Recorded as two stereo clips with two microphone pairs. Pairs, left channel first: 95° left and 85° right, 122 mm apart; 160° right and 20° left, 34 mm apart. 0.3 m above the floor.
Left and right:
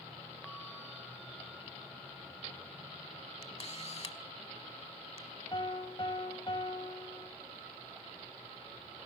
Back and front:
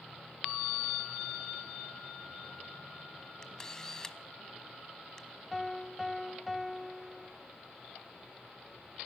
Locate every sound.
3.4 s a camera shutter: 125° left, 0.8 m
5.5 s a piano: 110° left, 0.9 m